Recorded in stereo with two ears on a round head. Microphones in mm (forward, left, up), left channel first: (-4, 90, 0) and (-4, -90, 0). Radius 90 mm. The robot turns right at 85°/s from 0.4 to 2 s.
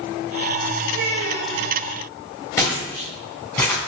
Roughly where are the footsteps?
Centre.